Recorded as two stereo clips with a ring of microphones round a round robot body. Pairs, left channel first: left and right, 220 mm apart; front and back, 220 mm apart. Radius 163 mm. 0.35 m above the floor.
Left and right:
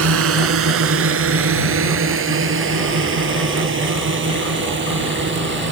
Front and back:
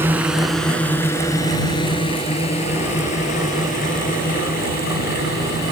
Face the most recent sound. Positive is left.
turn(degrees=-60)